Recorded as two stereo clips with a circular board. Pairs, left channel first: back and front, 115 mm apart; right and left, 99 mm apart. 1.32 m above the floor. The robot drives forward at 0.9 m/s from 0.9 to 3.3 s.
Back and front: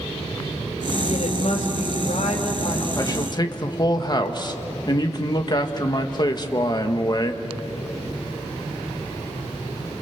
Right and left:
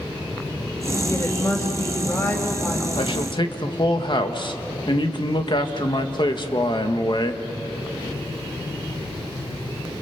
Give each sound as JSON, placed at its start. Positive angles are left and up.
{"t": 1.1, "sound": "a woman speaking", "azimuth_deg": -155, "distance_m": 5.0}
{"t": 3.0, "sound": "a man speaking", "azimuth_deg": -120, "distance_m": 1.5}